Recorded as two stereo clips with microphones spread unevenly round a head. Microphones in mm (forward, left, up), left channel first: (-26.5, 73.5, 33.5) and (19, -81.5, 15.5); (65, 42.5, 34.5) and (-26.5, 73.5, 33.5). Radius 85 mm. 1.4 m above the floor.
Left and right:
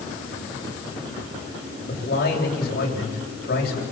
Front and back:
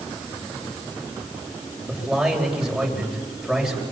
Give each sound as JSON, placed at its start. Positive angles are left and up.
{"t": 1.9, "sound": "a man speaking", "azimuth_deg": 75, "distance_m": 8.5}